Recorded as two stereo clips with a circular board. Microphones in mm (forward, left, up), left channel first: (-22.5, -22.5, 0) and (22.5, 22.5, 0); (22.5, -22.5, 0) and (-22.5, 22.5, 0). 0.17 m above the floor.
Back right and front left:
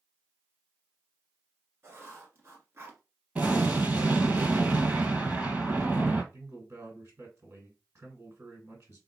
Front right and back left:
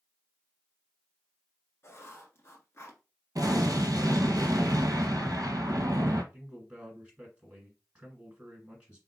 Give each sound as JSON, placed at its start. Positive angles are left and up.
{"t": 1.8, "sound": "writing", "azimuth_deg": 0, "distance_m": 1.3}
{"t": 3.4, "sound": "an explosion", "azimuth_deg": 110, "distance_m": 0.8}
{"t": 6.3, "sound": "a man speaking", "azimuth_deg": 70, "distance_m": 1.7}